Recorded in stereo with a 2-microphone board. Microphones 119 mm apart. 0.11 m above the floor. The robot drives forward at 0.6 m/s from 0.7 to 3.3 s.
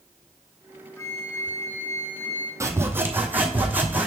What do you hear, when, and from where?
1.0 s a flute: 20° left (ahead or behind), 1.3 m; by 2.5 s 15° left (ahead or behind), 1.8 m
2.6 s sawing: 25° right (ahead or behind), 0.7 m; by 4.1 s 15° right (ahead or behind), 1.1 m